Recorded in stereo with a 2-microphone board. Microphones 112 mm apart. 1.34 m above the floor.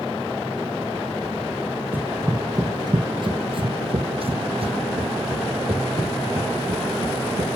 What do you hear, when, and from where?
1.9 s running footsteps: 15° right (ahead or behind), 1.4 m; by 7.5 s 60° right (ahead or behind), 5 m